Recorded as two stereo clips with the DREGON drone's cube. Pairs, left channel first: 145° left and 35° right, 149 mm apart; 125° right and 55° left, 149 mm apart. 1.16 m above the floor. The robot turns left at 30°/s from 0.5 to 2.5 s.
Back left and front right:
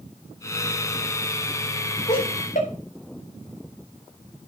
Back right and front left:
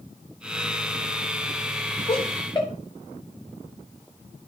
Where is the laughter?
175° right, 4 m; by 2.7 s 175° left, 4 m.